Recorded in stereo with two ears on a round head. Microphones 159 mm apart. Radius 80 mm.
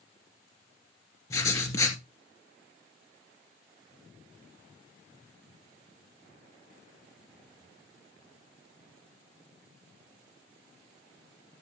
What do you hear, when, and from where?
1.3 s writing: 20° left (ahead or behind), 2 m